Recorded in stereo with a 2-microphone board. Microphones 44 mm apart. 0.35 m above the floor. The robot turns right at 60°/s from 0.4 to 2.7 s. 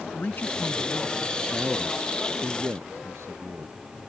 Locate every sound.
0.1 s a man speaking: 125° left; by 1.4 s 175° right
1.5 s a man speaking: 170° right; by 3.8 s 95° right